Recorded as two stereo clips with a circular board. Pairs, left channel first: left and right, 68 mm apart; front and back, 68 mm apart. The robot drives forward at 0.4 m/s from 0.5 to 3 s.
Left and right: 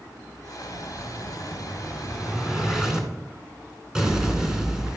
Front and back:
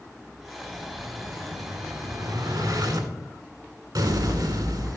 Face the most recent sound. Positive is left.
turn(degrees=-170)